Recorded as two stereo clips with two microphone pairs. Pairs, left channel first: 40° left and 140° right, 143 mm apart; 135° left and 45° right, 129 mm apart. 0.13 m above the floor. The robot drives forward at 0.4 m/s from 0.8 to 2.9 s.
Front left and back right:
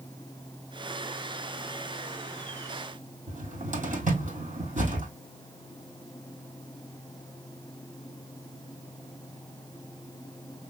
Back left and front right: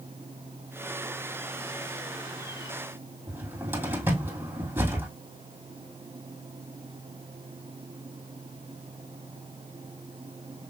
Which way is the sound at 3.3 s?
115° right.